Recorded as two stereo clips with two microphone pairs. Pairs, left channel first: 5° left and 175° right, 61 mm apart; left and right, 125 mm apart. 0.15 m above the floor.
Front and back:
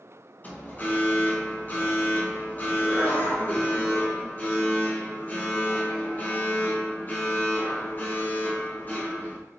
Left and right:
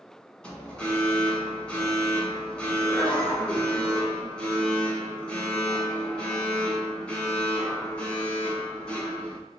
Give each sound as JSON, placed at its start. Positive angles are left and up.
{"t": 0.4, "sound": "an alarm", "azimuth_deg": 15, "distance_m": 1.3}